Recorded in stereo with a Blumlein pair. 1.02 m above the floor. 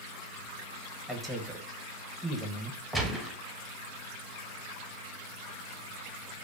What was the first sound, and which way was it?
A man speaking, 5° left.